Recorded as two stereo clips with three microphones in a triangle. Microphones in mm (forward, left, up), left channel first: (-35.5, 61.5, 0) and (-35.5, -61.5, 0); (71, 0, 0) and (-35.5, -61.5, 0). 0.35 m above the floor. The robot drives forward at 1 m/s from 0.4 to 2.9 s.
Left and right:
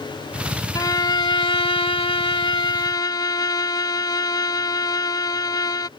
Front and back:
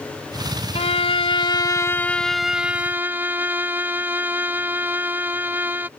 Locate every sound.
0.8 s a violin: 35° left; by 5.9 s 140° left